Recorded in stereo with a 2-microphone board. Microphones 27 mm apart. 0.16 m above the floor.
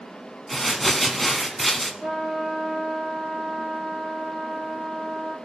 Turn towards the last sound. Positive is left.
turn(degrees=-35)  # may be behind; listen again after turning